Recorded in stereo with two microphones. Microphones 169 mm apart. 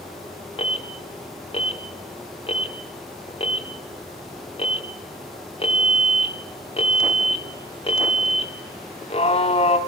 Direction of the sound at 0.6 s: 35° left (ahead or behind).